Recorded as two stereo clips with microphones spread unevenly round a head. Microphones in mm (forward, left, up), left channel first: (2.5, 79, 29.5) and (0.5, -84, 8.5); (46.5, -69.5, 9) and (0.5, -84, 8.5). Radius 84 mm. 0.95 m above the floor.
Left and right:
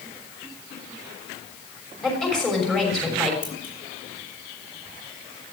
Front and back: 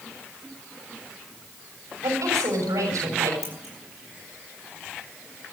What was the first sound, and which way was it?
A woman speaking, 175° left.